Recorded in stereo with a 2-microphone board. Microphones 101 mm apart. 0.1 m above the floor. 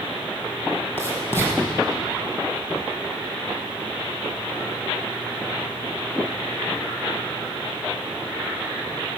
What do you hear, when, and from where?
1.0 s writing: 20° left (ahead or behind), 3.5 m